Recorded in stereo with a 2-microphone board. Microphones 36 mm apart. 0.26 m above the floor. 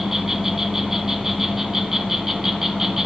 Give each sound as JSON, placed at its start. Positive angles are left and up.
{"t": 0.0, "sound": "an insect", "side_deg": -10, "distance_m": 0.7}